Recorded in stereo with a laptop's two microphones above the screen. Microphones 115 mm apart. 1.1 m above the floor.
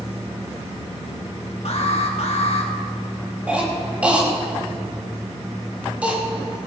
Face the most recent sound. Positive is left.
turn(degrees=-10)  # may be behind; listen again after turning